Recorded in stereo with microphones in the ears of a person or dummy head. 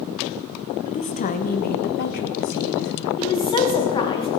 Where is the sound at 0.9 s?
35° left (ahead or behind), 1.1 m; by 3.1 s 70° left (ahead or behind), 1.9 m.